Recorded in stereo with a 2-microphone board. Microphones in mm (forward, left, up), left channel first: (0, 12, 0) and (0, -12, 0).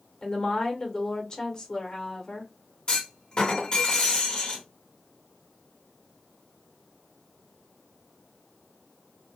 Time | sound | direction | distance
0.2 | a woman speaking | 35° left (ahead or behind) | 0.9 m
2.9 | a clunk | 40° left (ahead or behind) | 1.2 m